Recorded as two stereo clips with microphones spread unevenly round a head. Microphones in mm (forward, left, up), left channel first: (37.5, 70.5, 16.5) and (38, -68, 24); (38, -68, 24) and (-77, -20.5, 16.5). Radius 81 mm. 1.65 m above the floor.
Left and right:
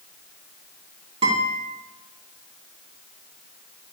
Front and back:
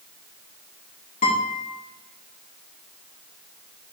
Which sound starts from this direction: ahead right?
A guitar, at 1.2 s.